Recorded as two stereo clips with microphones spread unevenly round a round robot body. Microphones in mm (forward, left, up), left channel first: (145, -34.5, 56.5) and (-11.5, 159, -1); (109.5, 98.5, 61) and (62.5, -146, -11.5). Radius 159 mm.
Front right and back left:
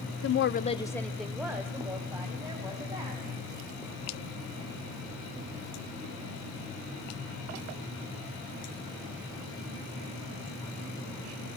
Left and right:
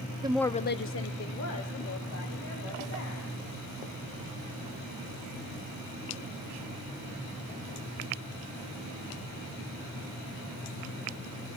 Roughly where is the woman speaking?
Right.